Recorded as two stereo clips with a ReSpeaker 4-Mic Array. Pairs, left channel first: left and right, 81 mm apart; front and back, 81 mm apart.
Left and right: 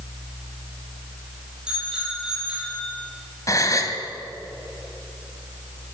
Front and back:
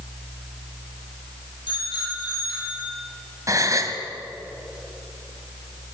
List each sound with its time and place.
1.7 s a bicycle bell: 10° right, 9.5 m
3.5 s a gasp: 135° left, 1.8 m